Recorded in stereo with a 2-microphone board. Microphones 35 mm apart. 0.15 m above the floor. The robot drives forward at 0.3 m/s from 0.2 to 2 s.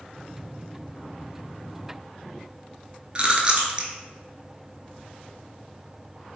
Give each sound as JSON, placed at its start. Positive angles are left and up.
{"t": 3.1, "sound": "chewing", "side_deg": -35, "distance_m": 0.5}